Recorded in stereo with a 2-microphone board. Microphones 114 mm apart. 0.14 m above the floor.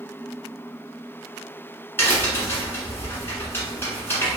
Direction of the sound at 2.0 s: 20° left (ahead or behind).